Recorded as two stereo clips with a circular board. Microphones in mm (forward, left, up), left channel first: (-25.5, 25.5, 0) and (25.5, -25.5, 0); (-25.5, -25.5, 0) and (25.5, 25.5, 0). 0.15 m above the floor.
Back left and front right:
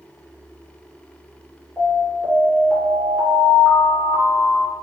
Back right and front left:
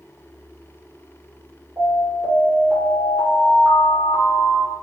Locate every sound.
1.8 s an alarm: 45° left, 1.9 m